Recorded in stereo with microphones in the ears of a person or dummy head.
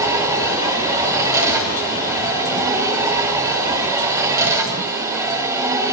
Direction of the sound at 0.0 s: 20° right (ahead or behind).